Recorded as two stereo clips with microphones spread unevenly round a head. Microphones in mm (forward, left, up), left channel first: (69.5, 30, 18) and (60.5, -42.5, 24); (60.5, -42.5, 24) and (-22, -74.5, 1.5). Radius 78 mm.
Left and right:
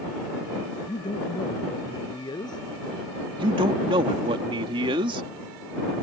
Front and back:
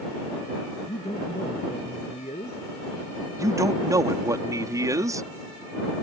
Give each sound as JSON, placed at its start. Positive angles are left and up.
{"t": 0.9, "sound": "a man speaking", "azimuth_deg": 60}
{"t": 3.4, "sound": "a man speaking", "azimuth_deg": -105}